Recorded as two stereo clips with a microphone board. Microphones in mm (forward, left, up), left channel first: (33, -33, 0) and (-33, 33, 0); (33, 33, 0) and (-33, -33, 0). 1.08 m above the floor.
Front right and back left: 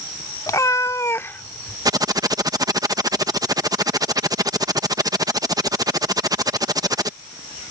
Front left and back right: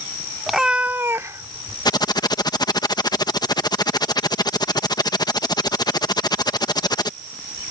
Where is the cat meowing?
45° right; by 1.8 s 110° right.